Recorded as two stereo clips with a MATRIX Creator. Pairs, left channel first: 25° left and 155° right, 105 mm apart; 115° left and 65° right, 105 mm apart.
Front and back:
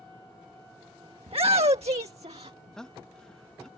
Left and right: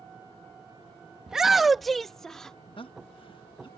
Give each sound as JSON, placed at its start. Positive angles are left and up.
{"t": 1.3, "sound": "a shout", "azimuth_deg": -150}
{"t": 2.8, "sound": "a man speaking", "azimuth_deg": 105}